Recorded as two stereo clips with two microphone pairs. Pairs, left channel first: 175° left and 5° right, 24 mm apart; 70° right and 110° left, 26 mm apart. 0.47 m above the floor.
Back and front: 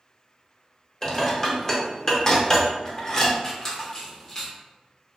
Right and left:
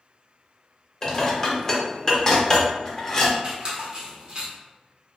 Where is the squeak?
125° left, 0.8 m.